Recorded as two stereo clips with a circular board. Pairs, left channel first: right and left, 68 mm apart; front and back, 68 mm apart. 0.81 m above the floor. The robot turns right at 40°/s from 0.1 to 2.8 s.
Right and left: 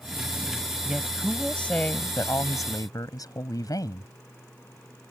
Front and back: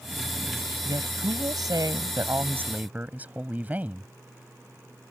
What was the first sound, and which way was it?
A woman speaking, 170° left.